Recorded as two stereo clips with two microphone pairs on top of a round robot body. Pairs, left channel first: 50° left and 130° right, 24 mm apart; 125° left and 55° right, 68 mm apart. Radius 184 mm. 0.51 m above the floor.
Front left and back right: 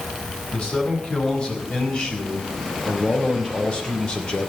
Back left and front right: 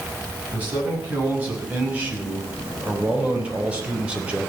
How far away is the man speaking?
About 6.5 m.